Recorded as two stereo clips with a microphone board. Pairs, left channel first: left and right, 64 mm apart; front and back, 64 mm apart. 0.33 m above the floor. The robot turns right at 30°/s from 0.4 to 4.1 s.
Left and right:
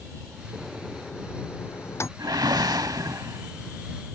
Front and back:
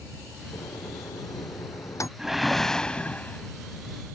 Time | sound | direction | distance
0.5 | a microwave | 5° right | ?
2.2 | a whoosh | 95° right | ?